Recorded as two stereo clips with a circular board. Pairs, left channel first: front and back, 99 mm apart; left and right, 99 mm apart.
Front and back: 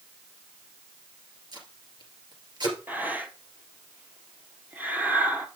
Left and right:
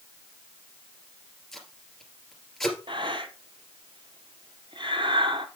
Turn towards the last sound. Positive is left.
turn(degrees=-110)